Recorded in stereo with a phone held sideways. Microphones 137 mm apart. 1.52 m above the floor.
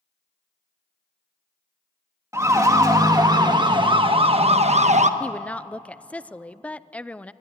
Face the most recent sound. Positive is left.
turn(degrees=10)  # may be behind; listen again after turning